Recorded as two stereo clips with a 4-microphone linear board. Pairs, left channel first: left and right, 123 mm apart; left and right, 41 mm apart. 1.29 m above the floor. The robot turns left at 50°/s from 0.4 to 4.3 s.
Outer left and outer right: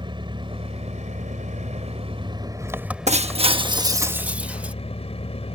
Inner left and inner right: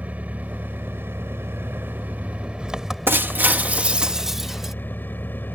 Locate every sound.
0.0 s an engine running: 45° right; by 5.6 s 120° left
3.1 s breaking glass: 105° right; by 4.7 s 170° right